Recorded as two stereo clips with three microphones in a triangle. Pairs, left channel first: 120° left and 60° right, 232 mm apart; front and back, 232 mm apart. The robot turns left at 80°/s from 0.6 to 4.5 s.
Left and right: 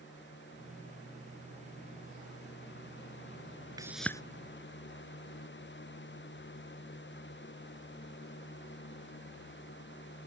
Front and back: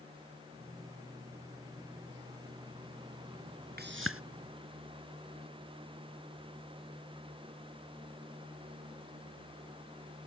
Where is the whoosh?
135° right; by 4.2 s 165° right.